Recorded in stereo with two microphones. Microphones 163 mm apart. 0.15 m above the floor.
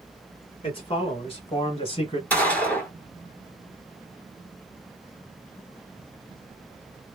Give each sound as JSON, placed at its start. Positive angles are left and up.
{"t": 0.6, "sound": "a man speaking", "side_deg": 35, "distance_m": 1.5}
{"t": 2.3, "sound": "a gunshot", "side_deg": 10, "distance_m": 1.2}